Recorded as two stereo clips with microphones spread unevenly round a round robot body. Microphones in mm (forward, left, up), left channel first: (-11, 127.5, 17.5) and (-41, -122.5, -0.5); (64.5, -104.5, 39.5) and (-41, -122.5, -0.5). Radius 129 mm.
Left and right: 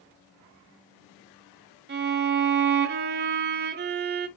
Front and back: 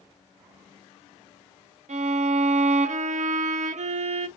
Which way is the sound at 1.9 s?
150° right.